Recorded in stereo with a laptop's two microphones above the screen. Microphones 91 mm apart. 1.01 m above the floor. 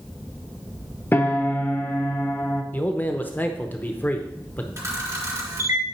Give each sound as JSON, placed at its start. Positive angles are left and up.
{"t": 1.1, "sound": "a piano", "side_deg": 25, "distance_m": 0.7}
{"t": 2.7, "sound": "a man speaking", "side_deg": 20, "distance_m": 0.7}
{"t": 4.8, "sound": "a camera shutter", "side_deg": -30, "distance_m": 3.5}